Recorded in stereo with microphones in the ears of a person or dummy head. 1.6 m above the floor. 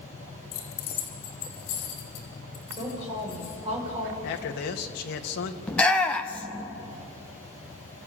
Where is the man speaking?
60° left (ahead or behind), 1.8 m.